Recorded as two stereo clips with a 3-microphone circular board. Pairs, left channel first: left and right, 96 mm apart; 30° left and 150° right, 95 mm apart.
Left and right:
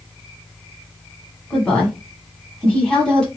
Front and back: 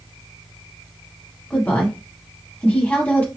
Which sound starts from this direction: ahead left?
A woman speaking, at 1.5 s.